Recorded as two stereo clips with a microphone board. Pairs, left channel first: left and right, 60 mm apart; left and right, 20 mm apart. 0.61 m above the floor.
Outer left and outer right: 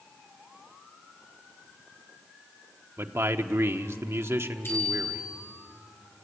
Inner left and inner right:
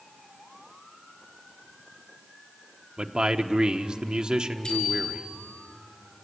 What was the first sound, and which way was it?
A man speaking, 45° right (ahead or behind).